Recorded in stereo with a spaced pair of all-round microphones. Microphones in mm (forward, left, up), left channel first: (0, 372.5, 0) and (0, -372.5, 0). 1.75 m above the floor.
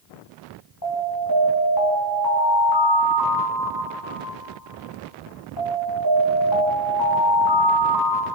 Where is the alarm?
30° left (ahead or behind), 4.5 m.